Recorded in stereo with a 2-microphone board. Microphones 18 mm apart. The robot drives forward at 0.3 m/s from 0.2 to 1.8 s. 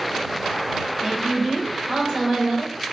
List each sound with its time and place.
1.0 s a woman speaking: 45° right (ahead or behind), 1.3 m